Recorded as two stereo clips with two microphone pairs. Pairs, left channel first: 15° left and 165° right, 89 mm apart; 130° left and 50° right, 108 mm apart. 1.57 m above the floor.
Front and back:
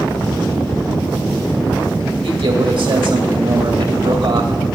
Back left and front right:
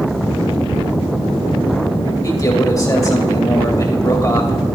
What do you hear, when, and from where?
2.2 s a man speaking: 175° right, 2.5 m